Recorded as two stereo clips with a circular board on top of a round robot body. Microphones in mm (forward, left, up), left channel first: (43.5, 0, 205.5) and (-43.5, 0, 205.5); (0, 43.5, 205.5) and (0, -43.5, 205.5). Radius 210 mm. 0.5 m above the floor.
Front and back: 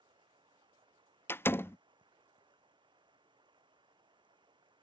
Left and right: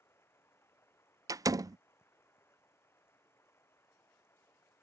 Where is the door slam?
55° right.